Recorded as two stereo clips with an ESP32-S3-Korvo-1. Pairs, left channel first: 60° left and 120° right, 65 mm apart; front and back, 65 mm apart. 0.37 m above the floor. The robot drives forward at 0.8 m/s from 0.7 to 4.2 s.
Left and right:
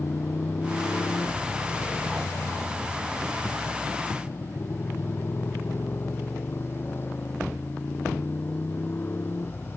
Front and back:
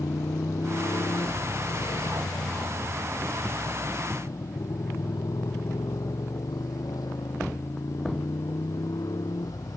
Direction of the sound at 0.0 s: 15° left.